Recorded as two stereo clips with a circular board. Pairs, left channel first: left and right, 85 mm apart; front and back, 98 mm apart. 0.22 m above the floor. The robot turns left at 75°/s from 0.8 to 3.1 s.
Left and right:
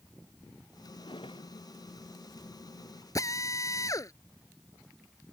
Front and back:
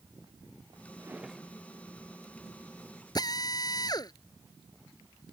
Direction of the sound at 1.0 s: 115° left.